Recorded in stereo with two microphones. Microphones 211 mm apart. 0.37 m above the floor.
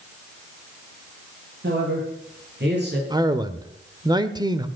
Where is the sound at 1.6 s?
60° right (ahead or behind), 9 m; by 3.0 s 55° right (ahead or behind), 8 m.